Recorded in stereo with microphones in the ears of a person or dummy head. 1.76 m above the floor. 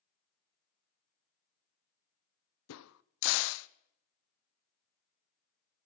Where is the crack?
85° left, 1.1 m.